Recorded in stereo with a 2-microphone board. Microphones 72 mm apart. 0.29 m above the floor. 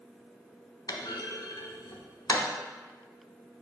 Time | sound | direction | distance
0.9 | a clunk | 70° left (ahead or behind) | 0.9 m